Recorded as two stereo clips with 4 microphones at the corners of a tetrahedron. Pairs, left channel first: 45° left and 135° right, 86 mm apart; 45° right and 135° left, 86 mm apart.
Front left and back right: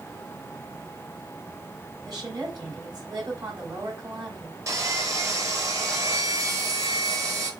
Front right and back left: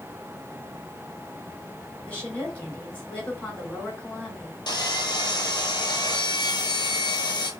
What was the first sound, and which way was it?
A woman speaking, 110° right.